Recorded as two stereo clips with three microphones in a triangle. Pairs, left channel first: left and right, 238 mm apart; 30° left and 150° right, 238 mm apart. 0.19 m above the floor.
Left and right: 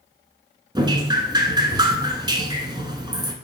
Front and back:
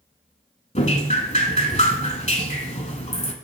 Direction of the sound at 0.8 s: 25° right.